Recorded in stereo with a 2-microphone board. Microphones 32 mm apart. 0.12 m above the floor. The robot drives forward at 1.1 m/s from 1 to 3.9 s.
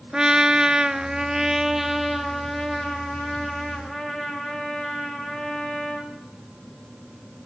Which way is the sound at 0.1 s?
30° right (ahead or behind).